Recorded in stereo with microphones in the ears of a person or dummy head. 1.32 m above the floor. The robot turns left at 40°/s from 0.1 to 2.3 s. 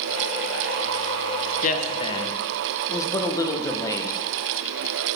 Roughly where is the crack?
I don't hear a crack.